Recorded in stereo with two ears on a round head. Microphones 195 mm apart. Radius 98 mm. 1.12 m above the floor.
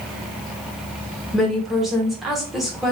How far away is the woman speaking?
About 1.2 m.